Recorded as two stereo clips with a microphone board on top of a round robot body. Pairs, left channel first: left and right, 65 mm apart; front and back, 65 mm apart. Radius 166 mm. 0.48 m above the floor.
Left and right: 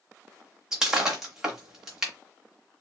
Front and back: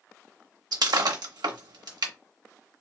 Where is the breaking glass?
170° right, 1.1 m.